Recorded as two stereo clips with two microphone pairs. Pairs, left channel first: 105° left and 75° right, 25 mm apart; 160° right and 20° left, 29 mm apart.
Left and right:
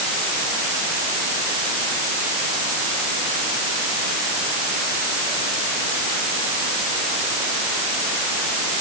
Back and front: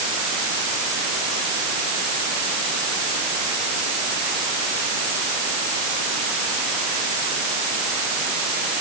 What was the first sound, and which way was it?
Only background noise.